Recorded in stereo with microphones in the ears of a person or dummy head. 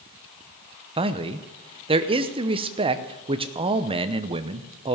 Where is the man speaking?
25° right (ahead or behind), 0.7 m.